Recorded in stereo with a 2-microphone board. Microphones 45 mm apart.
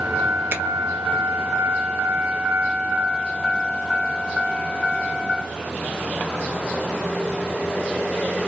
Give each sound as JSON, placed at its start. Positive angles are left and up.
{"t": 0.5, "sound": "a finger snap", "side_deg": -55, "distance_m": 0.6}